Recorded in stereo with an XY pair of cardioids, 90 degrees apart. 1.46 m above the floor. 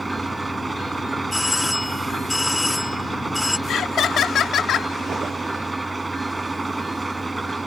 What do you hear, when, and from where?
0.0 s an engine running: 15° right
1.3 s a doorbell: 15° left
3.7 s laughter: 70° left